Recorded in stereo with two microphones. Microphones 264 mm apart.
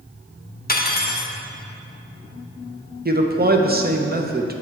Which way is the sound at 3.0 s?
35° right (ahead or behind).